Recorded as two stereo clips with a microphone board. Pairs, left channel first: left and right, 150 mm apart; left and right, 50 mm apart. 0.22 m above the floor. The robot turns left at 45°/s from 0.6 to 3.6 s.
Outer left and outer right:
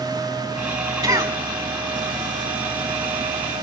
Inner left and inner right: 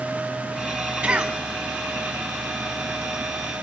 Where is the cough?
25° right (ahead or behind), 1.4 m; by 1.4 s 20° right (ahead or behind), 1.4 m.